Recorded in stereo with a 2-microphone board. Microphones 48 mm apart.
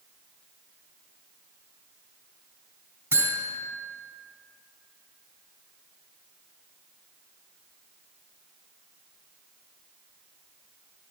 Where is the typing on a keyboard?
No typing on a keyboard in this recording.